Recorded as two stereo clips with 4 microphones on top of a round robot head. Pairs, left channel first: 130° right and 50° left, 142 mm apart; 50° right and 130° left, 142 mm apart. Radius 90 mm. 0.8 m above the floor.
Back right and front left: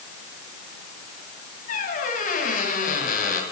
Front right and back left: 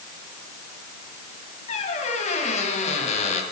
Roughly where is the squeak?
Right.